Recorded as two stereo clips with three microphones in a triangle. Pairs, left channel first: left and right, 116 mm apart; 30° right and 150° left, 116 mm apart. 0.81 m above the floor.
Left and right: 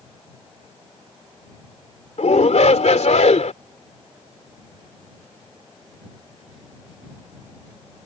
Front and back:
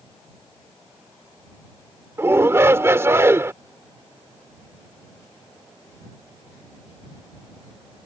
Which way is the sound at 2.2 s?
80° left.